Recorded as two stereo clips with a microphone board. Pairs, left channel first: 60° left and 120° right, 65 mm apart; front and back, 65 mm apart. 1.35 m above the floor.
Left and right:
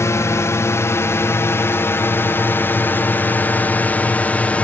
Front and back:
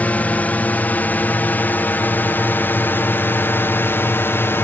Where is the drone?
55° left; by 4.7 s 5° left.